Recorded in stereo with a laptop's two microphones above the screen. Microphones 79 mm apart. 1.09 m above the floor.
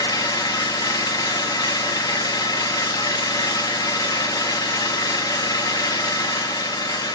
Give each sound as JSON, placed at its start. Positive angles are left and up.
{"t": 0.0, "sound": "an engine running", "side_deg": 55, "distance_m": 0.9}